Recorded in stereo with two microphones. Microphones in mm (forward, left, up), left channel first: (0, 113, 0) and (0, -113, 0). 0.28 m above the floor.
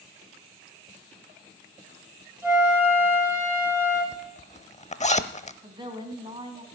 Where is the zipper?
30° left (ahead or behind), 0.7 m.